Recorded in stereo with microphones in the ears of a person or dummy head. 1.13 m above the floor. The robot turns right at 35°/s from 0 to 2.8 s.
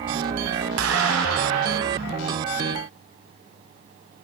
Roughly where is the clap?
Right.